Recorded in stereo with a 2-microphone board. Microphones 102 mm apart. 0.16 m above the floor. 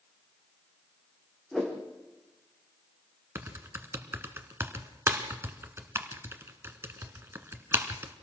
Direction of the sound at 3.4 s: 25° right (ahead or behind).